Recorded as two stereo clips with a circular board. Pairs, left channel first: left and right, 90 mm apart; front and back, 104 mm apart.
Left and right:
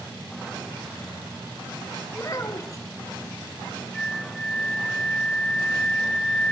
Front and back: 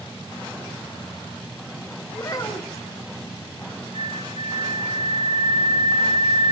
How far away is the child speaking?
About 1.2 m.